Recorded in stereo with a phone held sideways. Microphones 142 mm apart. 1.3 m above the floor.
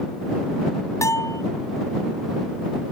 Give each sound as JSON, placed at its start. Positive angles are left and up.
{"t": 1.0, "sound": "a bell", "side_deg": 20}